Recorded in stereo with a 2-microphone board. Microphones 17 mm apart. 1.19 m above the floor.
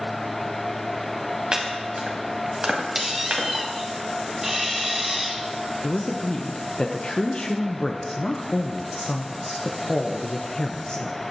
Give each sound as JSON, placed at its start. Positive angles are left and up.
{"t": 1.5, "sound": "chopping", "side_deg": -60, "distance_m": 2.0}
{"t": 3.0, "sound": "a squeak", "side_deg": -15, "distance_m": 1.1}
{"t": 5.8, "sound": "a man speaking", "side_deg": 65, "distance_m": 0.8}